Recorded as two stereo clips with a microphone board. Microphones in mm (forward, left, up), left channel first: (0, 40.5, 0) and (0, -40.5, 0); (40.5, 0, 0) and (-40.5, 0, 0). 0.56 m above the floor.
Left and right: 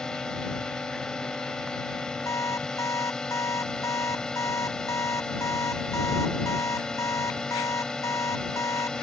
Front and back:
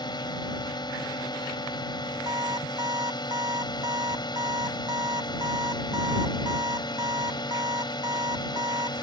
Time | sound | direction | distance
0.0 | a drone | 10° left | ?
2.3 | an alarm clock | 140° left | ?